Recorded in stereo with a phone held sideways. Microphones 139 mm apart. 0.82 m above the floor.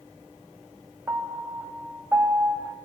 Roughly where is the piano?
Centre.